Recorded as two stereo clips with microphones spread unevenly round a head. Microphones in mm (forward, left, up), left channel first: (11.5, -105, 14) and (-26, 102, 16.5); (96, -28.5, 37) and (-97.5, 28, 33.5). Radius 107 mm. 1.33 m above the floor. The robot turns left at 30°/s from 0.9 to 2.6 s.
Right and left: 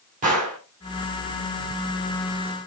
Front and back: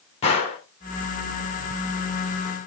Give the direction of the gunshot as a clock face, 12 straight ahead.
10 o'clock.